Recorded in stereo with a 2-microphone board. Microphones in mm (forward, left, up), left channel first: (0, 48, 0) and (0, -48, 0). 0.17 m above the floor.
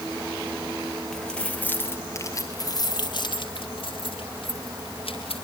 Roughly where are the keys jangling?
Centre.